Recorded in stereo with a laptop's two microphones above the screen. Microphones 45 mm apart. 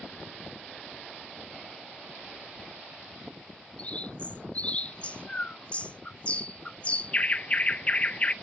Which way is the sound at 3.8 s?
30° left (ahead or behind).